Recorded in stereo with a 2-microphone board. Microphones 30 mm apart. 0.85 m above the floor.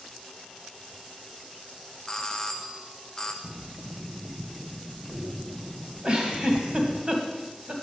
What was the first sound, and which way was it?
A doorbell, 20° left (ahead or behind).